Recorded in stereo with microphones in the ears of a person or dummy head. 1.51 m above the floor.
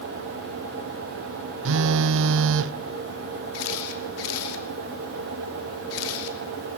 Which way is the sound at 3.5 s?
80° left.